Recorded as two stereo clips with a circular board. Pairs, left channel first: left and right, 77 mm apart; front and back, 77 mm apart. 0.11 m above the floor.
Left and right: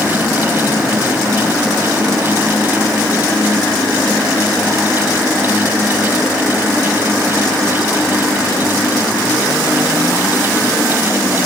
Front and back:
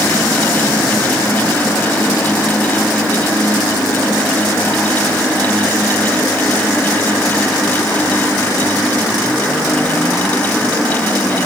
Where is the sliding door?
I don't hear a sliding door.